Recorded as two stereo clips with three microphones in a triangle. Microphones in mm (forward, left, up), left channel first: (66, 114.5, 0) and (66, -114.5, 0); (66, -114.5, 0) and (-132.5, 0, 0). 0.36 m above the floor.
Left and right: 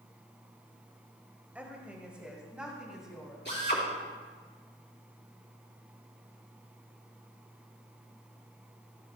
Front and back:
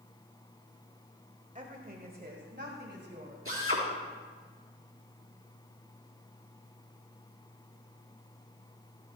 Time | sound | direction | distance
1.6 | a woman speaking | 170° right | 1.4 m
3.5 | a drill | 130° left | 4 m